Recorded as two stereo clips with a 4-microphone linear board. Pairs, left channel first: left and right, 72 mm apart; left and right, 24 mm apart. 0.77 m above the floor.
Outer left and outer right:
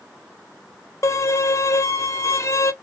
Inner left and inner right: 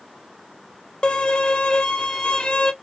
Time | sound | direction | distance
1.0 | a violin | 45° left (ahead or behind) | 0.5 m